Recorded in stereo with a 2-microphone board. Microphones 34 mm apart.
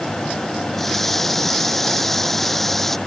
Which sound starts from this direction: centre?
A running tap, at 0.7 s.